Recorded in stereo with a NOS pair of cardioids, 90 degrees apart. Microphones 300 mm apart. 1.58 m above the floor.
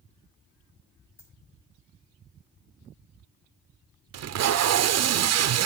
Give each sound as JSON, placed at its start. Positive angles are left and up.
{"t": 1.2, "sound": "a dropped coin", "azimuth_deg": 45, "distance_m": 4.0}
{"t": 4.1, "sound": "tape being pulled", "azimuth_deg": -55, "distance_m": 0.9}